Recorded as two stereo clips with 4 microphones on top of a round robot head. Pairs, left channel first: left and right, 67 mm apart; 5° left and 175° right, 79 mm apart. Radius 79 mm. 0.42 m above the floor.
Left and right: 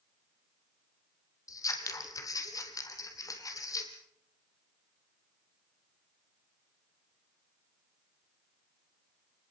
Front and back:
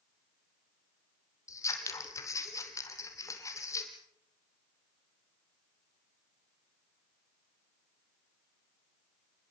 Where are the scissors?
55° left, 3 m.